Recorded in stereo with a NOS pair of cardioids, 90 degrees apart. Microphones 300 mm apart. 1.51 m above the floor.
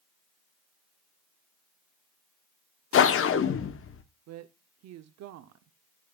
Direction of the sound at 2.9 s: 45° left.